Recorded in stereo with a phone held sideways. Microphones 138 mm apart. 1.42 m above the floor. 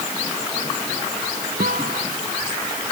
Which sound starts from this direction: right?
A guitar, at 1.6 s.